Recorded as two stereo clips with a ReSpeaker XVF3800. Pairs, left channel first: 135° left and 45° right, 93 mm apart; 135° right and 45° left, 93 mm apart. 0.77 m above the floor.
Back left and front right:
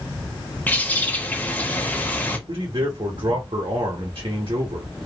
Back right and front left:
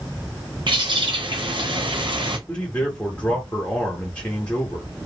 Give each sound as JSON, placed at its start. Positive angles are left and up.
{"t": 0.7, "sound": "a bird", "azimuth_deg": 65, "distance_m": 0.8}
{"t": 2.5, "sound": "a man speaking", "azimuth_deg": -60, "distance_m": 1.1}